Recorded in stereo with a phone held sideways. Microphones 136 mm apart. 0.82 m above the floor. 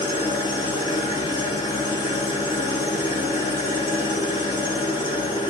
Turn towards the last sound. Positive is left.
turn(degrees=35)  # may be behind; listen again after turning